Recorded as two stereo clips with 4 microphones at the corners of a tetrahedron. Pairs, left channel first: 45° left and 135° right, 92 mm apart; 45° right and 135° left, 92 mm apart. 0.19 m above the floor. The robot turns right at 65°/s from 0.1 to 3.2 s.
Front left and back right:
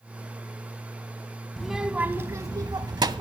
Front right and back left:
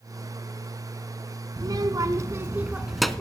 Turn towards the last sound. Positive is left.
turn(degrees=-125)